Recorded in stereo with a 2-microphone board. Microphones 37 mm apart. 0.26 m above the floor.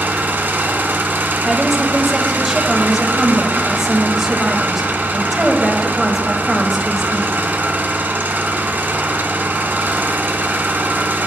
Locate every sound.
0.0 s an engine running: 70° right (ahead or behind), 0.9 m
1.4 s a woman speaking: 5° right (ahead or behind), 0.9 m